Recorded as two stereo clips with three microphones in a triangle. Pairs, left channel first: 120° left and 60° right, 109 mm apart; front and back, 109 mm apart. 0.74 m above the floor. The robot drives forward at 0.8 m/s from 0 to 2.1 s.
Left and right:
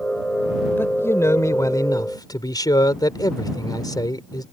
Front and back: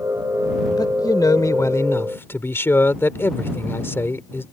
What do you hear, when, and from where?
0.8 s a man speaking: 50° left; by 4.5 s 70° left